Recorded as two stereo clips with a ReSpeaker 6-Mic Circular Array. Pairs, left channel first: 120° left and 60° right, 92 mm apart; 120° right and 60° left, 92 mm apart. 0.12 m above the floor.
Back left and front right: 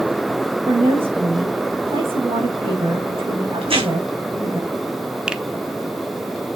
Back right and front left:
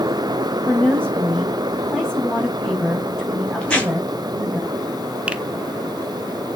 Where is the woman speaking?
40° right, 5.5 m.